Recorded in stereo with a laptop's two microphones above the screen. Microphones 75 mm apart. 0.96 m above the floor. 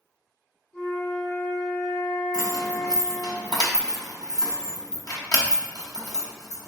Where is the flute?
20° left (ahead or behind), 1.3 m.